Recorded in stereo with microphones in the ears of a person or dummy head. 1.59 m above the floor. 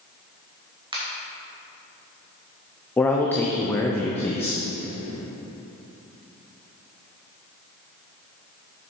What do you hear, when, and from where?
0.9 s a finger snap: 20° right (ahead or behind), 1.7 m
3.0 s a man speaking: 10° left (ahead or behind), 0.6 m